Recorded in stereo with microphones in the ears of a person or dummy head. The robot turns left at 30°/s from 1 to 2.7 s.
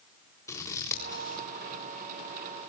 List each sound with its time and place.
0.5 s scissors: 20° left (ahead or behind), 3.5 m; by 1.4 s 30° left (ahead or behind), 3.5 m